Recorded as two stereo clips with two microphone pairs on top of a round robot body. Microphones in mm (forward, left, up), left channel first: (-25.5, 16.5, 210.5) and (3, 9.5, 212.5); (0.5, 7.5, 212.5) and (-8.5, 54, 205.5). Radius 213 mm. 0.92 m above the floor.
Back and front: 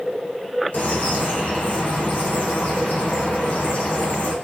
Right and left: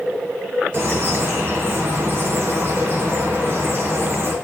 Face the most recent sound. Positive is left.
turn(degrees=140)